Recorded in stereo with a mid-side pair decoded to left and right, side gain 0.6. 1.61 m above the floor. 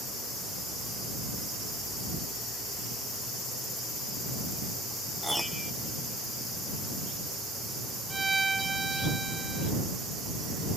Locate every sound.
5.2 s a piano: straight ahead
8.1 s a violin: 20° right